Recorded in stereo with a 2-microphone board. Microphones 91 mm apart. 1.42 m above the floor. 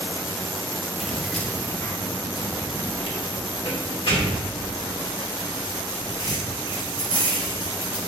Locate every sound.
1.0 s keys jangling: 5° right (ahead or behind), 1.6 m; by 8.0 s 75° left (ahead or behind), 8 m